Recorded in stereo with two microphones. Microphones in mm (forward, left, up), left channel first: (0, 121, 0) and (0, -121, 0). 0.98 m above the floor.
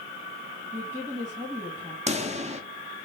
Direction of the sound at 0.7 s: 10° right (ahead or behind).